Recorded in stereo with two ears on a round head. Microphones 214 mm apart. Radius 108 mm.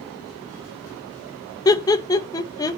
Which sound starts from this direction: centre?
Laughter, at 1.6 s.